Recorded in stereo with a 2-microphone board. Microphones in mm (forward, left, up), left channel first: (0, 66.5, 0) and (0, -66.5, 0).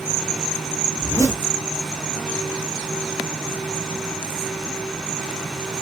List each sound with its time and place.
1.0 s a zipper: 20° left (ahead or behind), 1.8 m